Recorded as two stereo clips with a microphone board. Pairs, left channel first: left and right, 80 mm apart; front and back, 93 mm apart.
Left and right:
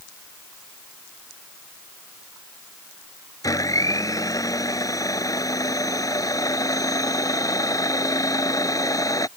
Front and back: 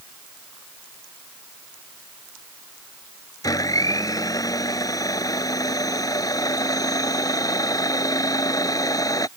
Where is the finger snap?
No finger snap in this recording.